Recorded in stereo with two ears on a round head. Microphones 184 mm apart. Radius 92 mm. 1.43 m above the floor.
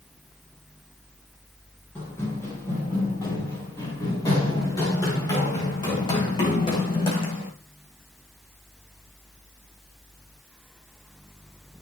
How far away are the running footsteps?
About 8 m.